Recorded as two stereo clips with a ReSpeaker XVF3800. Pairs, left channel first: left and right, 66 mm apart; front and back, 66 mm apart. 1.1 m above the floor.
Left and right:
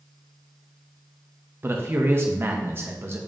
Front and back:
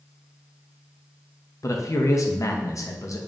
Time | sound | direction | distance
1.6 | a man speaking | 35° right | 0.7 m